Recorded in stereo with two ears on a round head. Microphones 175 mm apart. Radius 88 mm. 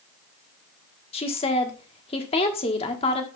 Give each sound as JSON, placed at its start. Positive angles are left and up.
{"t": 1.1, "sound": "a woman speaking", "side_deg": 30, "distance_m": 1.2}